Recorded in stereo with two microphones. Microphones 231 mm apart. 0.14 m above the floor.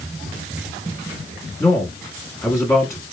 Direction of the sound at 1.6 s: 15° left (ahead or behind).